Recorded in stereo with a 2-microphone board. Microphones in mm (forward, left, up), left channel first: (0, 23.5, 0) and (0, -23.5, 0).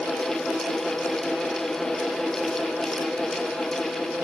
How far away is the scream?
I don't hear a scream.